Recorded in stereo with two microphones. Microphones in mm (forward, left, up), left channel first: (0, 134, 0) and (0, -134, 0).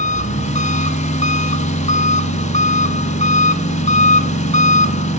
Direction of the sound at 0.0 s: 25° left (ahead or behind).